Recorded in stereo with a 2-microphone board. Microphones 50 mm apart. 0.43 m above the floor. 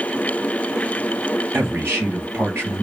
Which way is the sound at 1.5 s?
45° right (ahead or behind).